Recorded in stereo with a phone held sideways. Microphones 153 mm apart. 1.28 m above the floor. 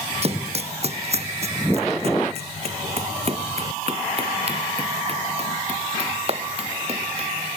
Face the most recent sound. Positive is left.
turn(degrees=-40)  # may be behind; listen again after turning